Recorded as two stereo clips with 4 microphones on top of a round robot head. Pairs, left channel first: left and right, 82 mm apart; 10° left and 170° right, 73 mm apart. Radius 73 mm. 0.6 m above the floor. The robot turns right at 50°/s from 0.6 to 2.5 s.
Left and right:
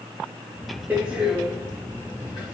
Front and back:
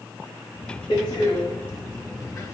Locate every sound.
0.9 s a door slam: 25° right, 2 m; by 2.5 s 55° left, 2 m